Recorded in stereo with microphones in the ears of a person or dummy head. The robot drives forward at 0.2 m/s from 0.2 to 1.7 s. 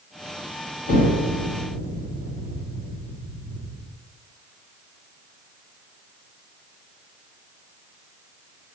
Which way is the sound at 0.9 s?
40° left (ahead or behind).